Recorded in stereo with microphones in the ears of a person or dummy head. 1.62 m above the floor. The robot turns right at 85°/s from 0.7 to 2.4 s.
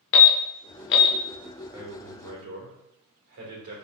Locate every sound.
0.1 s an alarm: 55° left (ahead or behind), 0.6 m; by 1.1 s 40° left (ahead or behind), 0.6 m
1.7 s a man speaking: 165° right, 1.6 m; by 3.8 s 110° right, 1.6 m